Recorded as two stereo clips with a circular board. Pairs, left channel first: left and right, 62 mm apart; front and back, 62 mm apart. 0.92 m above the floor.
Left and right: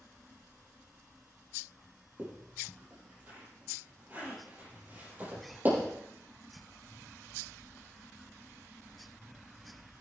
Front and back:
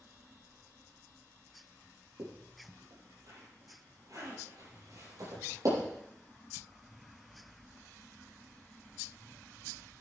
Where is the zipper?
155° right, 7 m.